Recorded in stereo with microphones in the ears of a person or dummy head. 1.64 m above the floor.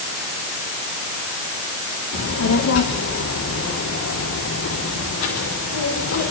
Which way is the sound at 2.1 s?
80° left.